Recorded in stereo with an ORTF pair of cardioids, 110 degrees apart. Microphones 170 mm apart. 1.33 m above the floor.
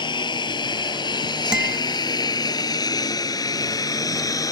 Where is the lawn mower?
25° left; by 4.5 s 20° left.